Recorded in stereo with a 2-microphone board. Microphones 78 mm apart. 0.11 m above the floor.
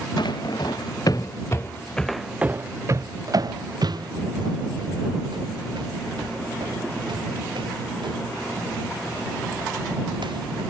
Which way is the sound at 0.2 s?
70° left (ahead or behind).